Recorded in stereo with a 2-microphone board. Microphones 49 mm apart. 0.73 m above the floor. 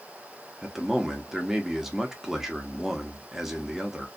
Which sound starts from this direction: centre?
A man speaking, at 0.6 s.